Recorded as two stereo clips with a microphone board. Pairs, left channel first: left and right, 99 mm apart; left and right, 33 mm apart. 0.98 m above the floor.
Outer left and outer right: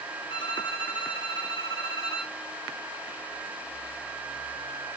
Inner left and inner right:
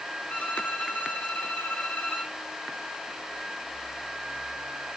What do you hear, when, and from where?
0.3 s a violin: 55° left (ahead or behind), 3.5 m